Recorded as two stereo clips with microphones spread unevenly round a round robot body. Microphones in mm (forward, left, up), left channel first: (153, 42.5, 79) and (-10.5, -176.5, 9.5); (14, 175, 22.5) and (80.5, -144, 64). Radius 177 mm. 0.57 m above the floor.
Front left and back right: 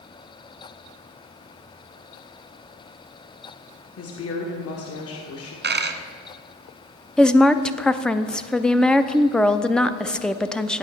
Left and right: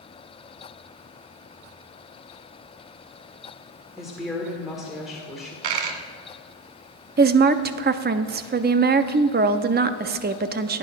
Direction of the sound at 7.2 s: 75° right.